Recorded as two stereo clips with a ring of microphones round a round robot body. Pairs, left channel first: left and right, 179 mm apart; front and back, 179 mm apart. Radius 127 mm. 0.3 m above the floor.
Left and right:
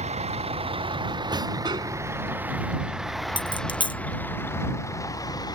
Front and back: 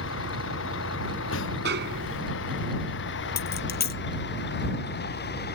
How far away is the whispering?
No whispering in this recording.